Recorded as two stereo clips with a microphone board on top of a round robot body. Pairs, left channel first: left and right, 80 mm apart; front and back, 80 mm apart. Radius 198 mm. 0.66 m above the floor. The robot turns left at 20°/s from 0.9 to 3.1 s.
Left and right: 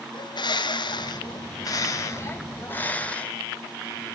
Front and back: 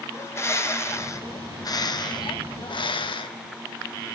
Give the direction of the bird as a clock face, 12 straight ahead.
10 o'clock.